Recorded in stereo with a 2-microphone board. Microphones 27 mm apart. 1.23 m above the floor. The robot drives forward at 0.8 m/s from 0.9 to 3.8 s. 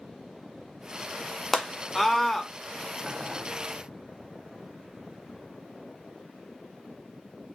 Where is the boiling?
20° right (ahead or behind), 1.2 m; by 3.5 s 25° right (ahead or behind), 0.9 m.